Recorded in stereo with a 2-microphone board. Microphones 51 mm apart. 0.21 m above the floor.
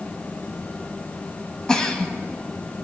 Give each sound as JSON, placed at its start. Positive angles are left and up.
{"t": 1.7, "sound": "a giggle", "side_deg": 15, "distance_m": 1.2}